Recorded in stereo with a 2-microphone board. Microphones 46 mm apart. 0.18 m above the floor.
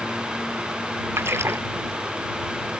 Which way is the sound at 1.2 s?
75° right (ahead or behind).